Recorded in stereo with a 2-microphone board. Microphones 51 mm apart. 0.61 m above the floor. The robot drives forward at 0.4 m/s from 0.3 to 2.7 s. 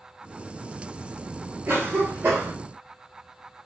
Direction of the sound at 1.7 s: 45° right (ahead or behind).